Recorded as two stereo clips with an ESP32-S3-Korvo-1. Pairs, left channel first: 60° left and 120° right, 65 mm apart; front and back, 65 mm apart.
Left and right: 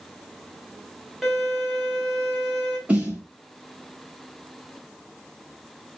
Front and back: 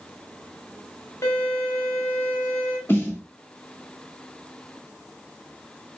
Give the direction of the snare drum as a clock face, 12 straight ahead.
2 o'clock.